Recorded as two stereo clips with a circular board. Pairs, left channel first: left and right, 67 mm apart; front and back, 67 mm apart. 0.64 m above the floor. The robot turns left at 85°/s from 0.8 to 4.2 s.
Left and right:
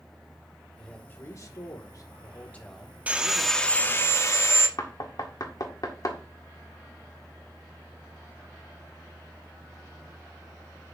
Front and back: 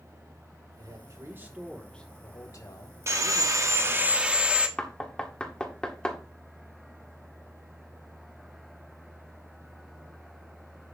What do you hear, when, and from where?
0.8 s a man speaking: 175° left, 2.5 m; by 4.1 s 105° right, 2.5 m
3.1 s sawing: 150° right, 1.2 m; by 4.7 s 110° left, 1.2 m
4.8 s knocking: 75° left, 1.7 m